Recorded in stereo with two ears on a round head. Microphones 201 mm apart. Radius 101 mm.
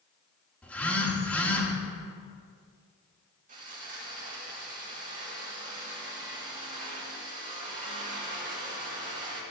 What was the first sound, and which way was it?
A phone buzzing, 5° left (ahead or behind).